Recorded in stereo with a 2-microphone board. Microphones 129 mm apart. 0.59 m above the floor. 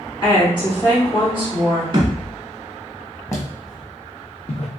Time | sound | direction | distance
0.2 | a woman speaking | 40° left (ahead or behind) | 1.9 m
1.9 | a thud | 40° right (ahead or behind) | 0.9 m
3.3 | footsteps | 25° left (ahead or behind) | 1.1 m